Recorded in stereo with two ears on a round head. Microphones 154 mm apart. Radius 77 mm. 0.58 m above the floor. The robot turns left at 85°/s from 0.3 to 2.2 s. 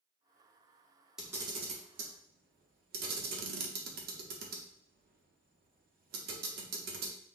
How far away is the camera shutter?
About 0.7 m.